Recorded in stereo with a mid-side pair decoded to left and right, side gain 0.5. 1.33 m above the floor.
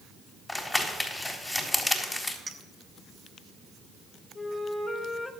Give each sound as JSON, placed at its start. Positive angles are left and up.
{"t": 0.5, "sound": "crumpling", "azimuth_deg": 15, "distance_m": 4.0}
{"t": 2.5, "sound": "a clink", "azimuth_deg": -20, "distance_m": 2.0}
{"t": 4.3, "sound": "a flute", "azimuth_deg": 25, "distance_m": 3.0}